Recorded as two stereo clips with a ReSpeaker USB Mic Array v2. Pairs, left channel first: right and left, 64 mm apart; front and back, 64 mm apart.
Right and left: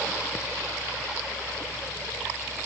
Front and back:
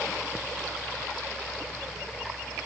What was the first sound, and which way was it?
Only background noise.